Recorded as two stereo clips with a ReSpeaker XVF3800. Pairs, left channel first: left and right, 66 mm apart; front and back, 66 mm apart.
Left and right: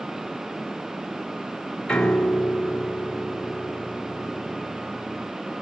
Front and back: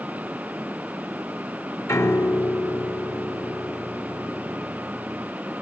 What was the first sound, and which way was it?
A piano, 15° left.